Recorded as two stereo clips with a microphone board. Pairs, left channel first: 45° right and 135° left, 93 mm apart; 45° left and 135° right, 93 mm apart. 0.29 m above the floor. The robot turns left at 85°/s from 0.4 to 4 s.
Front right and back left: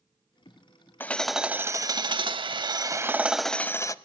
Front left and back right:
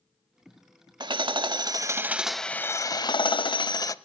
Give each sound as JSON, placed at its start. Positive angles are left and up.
{"t": 1.0, "sound": "hammering", "azimuth_deg": -110, "distance_m": 0.5}